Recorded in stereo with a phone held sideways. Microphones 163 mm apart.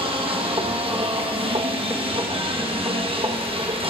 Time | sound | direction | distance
0.0 | a machine running | 35° right (ahead or behind) | 1.1 m